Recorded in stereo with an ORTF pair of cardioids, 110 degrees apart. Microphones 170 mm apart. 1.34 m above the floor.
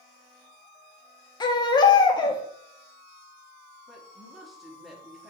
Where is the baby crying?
25° left, 0.8 m.